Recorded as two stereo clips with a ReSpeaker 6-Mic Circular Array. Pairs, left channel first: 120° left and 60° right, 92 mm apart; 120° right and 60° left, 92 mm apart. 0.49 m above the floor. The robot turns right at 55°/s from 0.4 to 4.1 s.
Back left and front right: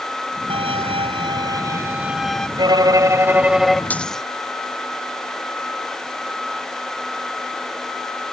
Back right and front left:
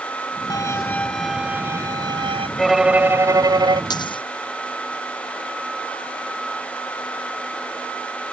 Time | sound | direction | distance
0.5 | a violin | 70° right | ?
2.6 | a violin | 35° right | ?
3.9 | a dropped coin | 165° right | ?